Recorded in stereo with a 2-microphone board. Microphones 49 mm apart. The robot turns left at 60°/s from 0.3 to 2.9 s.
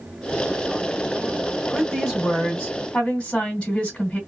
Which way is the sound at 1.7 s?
155° right.